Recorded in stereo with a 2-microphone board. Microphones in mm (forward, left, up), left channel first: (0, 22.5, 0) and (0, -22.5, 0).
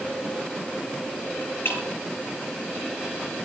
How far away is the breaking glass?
About 6.5 m.